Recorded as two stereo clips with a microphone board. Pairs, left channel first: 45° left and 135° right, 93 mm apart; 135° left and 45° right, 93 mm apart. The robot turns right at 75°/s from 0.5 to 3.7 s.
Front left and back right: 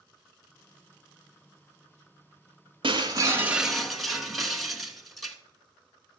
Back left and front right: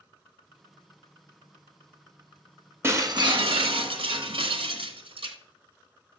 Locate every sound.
2.8 s breaking glass: 110° right, 1.0 m; by 5.4 s 45° right, 1.0 m